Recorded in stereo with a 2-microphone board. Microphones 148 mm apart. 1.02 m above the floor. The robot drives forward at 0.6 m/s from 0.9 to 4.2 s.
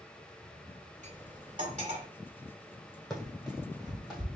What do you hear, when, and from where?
1.0 s cutlery clinking: 60° right (ahead or behind), 1.9 m; by 2.1 s 45° right (ahead or behind), 2.5 m
3.1 s running footsteps: 5° left (ahead or behind), 2.5 m; by 4.2 s 5° right (ahead or behind), 2.5 m